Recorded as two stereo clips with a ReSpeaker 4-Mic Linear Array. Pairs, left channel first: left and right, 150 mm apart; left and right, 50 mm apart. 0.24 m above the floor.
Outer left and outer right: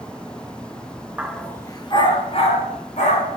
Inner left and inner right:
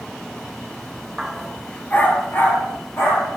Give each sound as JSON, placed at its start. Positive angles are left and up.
{"t": 1.2, "sound": "a dog barking", "side_deg": -10, "distance_m": 1.0}